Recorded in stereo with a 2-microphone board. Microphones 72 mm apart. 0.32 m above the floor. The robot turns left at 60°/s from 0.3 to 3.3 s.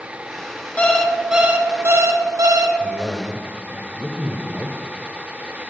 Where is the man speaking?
15° left (ahead or behind), 0.9 m; by 5.6 s 5° left (ahead or behind), 0.9 m.